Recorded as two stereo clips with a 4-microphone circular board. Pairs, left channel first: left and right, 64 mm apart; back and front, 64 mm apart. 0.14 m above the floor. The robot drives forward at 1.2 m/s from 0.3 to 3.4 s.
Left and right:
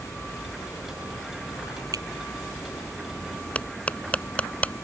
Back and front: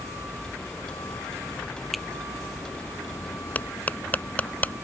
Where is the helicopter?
120° left; by 4.8 s 155° left.